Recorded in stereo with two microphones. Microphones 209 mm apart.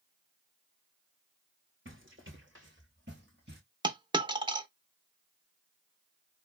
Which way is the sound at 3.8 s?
20° right (ahead or behind).